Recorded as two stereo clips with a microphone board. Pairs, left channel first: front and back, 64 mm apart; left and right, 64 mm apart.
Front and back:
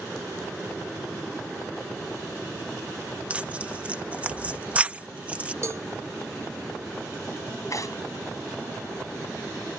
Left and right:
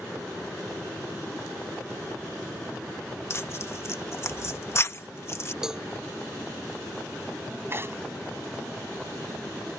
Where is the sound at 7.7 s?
35° right.